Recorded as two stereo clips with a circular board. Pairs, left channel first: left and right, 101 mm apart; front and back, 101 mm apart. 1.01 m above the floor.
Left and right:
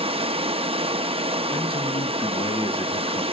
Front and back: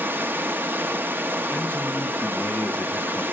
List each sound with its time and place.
0.0 s running water: 110° right, 0.8 m
1.5 s a man speaking: 70° left, 1.3 m